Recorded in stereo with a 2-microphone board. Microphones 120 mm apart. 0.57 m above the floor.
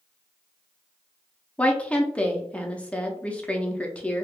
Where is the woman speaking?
10° left (ahead or behind), 0.6 m.